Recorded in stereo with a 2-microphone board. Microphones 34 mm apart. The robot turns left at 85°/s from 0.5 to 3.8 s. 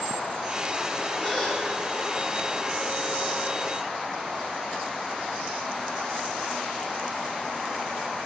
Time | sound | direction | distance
1.2 | a gasp | 50° left | 2.0 m